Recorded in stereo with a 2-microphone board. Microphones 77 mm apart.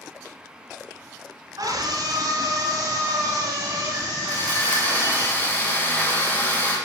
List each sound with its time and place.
1.6 s a scream: 60° right (ahead or behind), 1.7 m; by 5.3 s 20° right (ahead or behind), 3.5 m
4.3 s sawing: 25° left (ahead or behind), 3 m